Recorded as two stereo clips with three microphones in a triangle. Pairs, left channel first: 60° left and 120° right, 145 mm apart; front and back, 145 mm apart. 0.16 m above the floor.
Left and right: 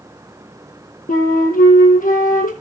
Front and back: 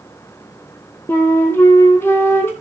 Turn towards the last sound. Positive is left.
turn(degrees=75)